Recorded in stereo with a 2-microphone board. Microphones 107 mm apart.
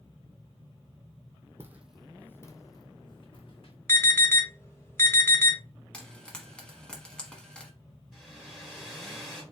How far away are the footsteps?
About 0.7 m.